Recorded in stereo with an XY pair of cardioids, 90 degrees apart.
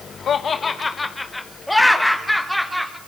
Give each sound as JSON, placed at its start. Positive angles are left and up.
{"t": 0.3, "sound": "laughter", "azimuth_deg": 65, "distance_m": 0.9}